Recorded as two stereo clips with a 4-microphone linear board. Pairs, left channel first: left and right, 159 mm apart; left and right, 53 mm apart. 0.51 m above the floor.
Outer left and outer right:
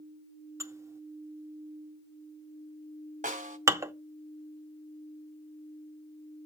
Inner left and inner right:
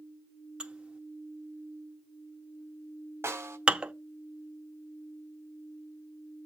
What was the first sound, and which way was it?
Dishes clattering, 20° right (ahead or behind).